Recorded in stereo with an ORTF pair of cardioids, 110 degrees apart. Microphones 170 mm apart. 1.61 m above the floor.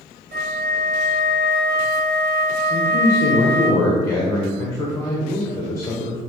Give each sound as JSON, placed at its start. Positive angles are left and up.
{"t": 0.3, "sound": "a flute", "azimuth_deg": -65, "distance_m": 1.7}
{"t": 2.7, "sound": "a man speaking", "azimuth_deg": 20, "distance_m": 1.5}